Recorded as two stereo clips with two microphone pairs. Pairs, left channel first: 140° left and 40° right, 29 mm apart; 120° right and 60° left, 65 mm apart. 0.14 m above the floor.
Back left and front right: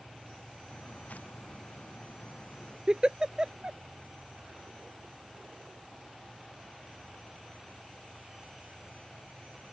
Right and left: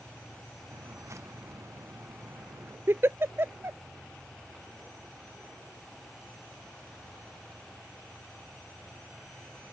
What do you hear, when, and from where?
0.7 s footsteps: 105° left; by 2.8 s 110° left
2.9 s a giggle: 15° left